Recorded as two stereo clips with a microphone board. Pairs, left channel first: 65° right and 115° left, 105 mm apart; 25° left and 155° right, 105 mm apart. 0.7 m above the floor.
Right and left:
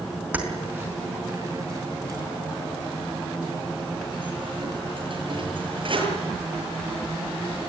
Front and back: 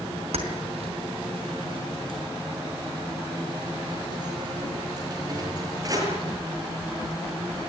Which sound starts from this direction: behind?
Keys jangling, at 0.3 s.